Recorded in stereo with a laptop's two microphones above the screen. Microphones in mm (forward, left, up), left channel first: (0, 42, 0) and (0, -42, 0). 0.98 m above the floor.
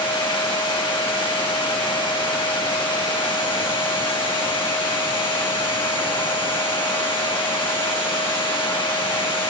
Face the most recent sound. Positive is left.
turn(degrees=85)